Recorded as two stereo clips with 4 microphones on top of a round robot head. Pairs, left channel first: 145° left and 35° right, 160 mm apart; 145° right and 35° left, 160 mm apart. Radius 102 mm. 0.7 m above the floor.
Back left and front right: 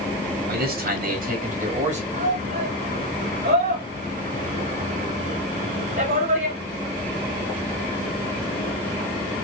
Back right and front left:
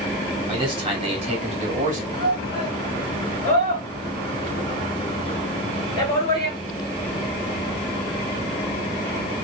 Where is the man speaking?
25° right, 2.5 m; by 2.0 s straight ahead, 1.6 m.